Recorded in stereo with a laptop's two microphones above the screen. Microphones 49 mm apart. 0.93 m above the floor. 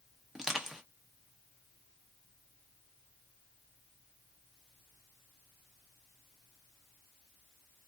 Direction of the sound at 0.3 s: 10° right (ahead or behind).